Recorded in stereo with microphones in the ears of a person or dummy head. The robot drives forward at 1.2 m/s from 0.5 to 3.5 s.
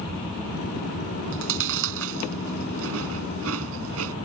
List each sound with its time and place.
1.3 s chewing: 75° right (ahead or behind); by 4.2 s 85° right